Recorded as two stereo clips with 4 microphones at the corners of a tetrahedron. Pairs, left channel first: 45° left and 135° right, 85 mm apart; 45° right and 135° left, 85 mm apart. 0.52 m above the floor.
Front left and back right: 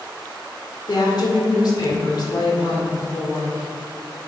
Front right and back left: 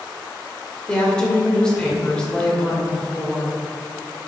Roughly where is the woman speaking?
Ahead left.